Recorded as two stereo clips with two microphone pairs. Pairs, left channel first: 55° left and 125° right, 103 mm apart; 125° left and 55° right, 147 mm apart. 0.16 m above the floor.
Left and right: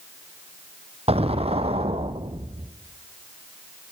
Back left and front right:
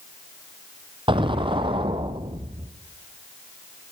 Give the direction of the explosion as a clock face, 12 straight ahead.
4 o'clock.